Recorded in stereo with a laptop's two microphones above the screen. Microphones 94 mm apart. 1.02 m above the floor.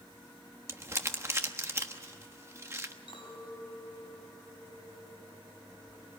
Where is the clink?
60° left (ahead or behind), 6.5 m.